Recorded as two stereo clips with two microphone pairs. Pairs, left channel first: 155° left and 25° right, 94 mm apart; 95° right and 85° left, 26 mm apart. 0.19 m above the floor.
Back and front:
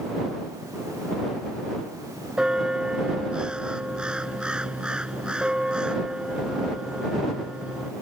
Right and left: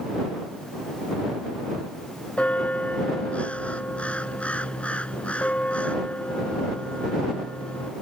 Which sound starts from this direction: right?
A bell, at 2.4 s.